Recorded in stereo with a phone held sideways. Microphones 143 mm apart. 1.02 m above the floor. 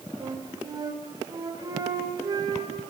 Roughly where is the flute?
Right.